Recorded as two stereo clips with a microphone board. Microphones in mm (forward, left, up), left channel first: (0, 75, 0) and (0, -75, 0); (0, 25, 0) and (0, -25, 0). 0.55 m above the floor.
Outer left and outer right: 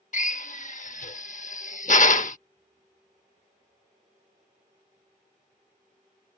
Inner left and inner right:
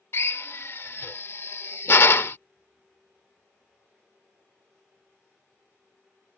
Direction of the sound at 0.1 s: 55° left (ahead or behind).